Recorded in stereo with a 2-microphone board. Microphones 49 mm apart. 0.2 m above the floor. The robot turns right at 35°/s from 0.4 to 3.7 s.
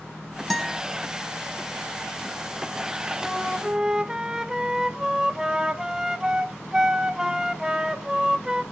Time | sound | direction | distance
0.5 | a guitar | 5° left (ahead or behind) | 1.6 m
3.2 | a flute | centre (ahead or behind) | 0.8 m